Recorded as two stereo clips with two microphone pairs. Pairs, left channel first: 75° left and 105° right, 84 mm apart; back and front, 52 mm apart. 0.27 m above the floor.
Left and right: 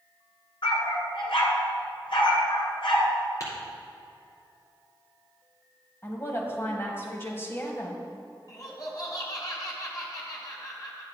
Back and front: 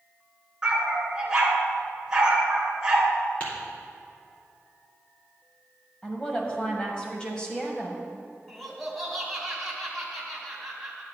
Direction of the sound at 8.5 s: 90° left.